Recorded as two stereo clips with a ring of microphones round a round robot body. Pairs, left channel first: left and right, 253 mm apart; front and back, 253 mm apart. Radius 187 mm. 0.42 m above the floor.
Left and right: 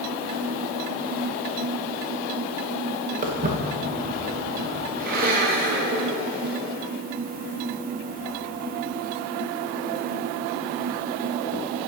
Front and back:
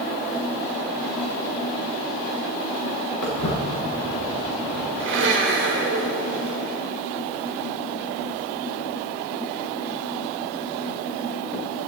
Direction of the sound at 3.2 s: 30° right.